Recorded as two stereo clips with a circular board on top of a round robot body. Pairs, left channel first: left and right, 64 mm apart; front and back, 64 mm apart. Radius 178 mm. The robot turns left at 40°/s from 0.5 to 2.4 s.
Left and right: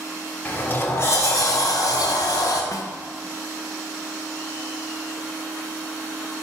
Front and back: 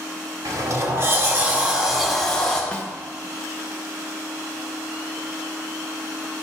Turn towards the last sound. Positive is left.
turn(degrees=70)